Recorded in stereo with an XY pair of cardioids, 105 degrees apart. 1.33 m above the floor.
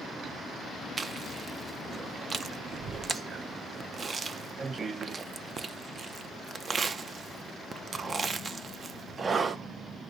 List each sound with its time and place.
1.0 s chewing: 40° right, 0.6 m